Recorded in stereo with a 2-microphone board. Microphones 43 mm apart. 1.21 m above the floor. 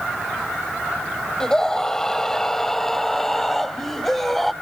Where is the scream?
15° left (ahead or behind); by 4.5 s 5° left (ahead or behind).